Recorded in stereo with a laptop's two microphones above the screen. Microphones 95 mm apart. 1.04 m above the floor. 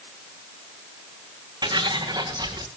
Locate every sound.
1.6 s footsteps: 50° right (ahead or behind), 3 m; by 2.7 s 45° right (ahead or behind), 4 m